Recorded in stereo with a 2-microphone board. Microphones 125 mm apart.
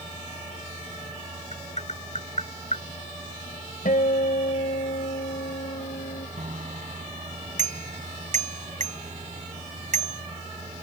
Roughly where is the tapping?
Left.